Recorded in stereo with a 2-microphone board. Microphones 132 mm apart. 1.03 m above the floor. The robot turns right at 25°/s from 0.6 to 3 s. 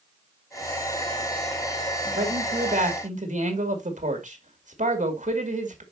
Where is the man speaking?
80° right, 2.5 m; by 5.8 s 65° right (ahead or behind), 2.5 m.